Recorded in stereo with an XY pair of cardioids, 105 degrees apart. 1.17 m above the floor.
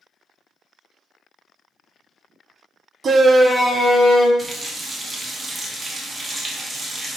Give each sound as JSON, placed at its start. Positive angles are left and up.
{"t": 3.0, "sound": "a shout", "azimuth_deg": -45, "distance_m": 0.6}
{"t": 4.4, "sound": "a running tap", "azimuth_deg": -25, "distance_m": 0.6}